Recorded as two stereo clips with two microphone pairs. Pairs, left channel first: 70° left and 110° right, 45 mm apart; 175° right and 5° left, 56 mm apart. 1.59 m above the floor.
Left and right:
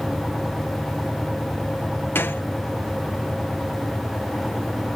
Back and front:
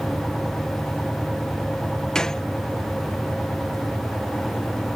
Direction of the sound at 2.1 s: 105° left.